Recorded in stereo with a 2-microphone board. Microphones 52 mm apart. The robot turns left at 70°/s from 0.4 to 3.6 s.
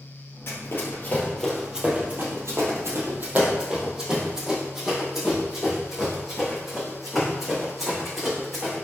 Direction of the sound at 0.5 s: 50° left (ahead or behind).